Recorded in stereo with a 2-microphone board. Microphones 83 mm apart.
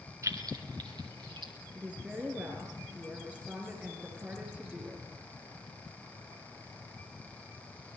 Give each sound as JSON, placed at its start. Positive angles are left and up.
{"t": 0.2, "sound": "keys jangling", "side_deg": -40, "distance_m": 1.6}
{"t": 1.8, "sound": "a woman speaking", "side_deg": -15, "distance_m": 4.0}